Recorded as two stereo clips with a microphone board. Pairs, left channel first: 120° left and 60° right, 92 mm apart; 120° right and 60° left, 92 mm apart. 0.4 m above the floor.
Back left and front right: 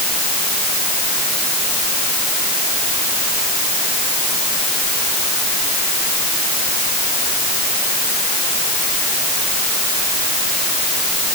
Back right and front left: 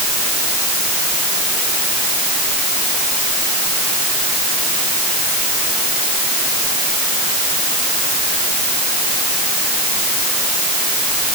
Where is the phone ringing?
I don't hear a phone ringing.